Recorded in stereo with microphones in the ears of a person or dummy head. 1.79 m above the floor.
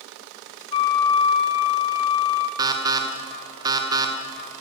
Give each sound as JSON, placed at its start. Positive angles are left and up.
{"t": 0.7, "sound": "a flute", "side_deg": 20, "distance_m": 0.7}
{"t": 2.6, "sound": "an alarm", "side_deg": -20, "distance_m": 1.1}